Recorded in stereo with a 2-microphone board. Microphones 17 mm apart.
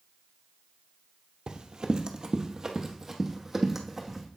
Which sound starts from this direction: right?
Running footsteps, at 1.5 s.